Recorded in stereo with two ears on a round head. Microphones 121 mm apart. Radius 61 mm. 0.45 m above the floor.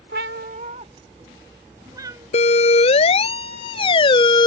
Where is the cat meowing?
85° right; by 2.3 s 25° right (ahead or behind).